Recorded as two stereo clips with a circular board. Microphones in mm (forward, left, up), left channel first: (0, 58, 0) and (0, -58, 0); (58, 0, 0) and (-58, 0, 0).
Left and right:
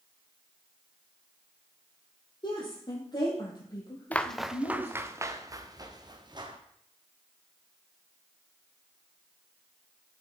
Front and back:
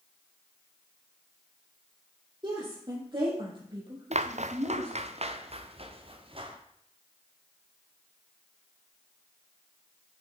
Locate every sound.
2.4 s a woman speaking: 135° left, 5 m; by 4.9 s 145° left, 3.5 m
4.1 s footsteps: 165° left, 0.7 m; by 6.6 s 140° right, 2 m